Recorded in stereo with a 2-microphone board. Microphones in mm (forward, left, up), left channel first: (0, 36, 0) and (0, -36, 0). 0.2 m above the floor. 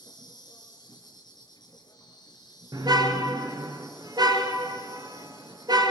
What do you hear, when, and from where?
0.0 s an insect: 70° left (ahead or behind), 5 m
2.7 s a car horn: 65° right (ahead or behind), 2 m